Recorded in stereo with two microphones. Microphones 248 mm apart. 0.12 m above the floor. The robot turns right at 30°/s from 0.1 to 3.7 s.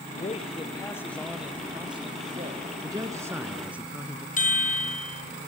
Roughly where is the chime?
Left.